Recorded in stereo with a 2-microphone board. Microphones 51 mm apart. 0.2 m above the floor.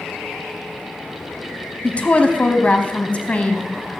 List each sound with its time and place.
1.8 s a woman speaking: 25° left (ahead or behind), 1.1 m